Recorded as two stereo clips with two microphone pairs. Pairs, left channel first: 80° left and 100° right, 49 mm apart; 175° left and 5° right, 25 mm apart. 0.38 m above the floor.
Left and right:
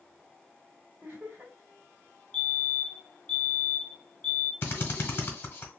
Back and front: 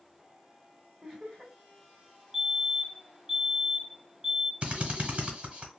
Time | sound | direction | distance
1.0 | laughter | 50° right | 1.9 m
2.3 | a fire alarm | 25° left | 1.9 m
4.6 | a drill | 35° left | 1.3 m